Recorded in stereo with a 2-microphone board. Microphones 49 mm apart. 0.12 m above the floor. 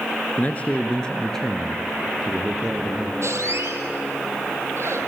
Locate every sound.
0.4 s a man speaking: 35° left (ahead or behind), 2 m; by 3.1 s 15° right (ahead or behind), 4 m
3.2 s a squeak: 65° right (ahead or behind), 2.5 m